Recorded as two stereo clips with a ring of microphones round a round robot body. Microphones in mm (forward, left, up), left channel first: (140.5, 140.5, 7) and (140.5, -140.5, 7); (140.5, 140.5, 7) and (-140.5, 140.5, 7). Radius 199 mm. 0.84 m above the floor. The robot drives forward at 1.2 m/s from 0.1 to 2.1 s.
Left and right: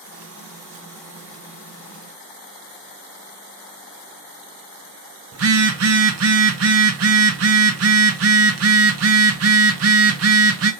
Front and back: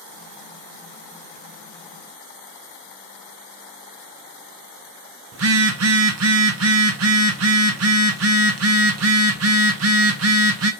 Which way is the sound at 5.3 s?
135° right.